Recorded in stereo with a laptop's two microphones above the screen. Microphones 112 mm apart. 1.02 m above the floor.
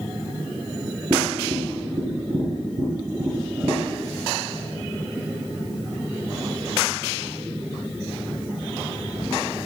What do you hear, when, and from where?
1.1 s tapping: 40° right (ahead or behind), 4 m